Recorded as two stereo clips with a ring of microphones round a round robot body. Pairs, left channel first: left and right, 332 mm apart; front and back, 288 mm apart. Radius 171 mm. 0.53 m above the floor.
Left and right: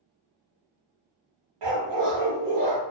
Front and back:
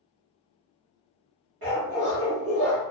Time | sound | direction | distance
1.6 | a dog barking | 120° right | 1.0 m